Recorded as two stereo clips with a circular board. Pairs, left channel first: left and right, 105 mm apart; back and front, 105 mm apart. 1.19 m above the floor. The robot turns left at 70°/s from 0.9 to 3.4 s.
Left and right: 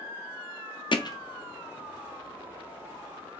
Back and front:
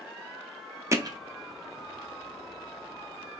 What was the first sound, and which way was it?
Hammering, 60° left.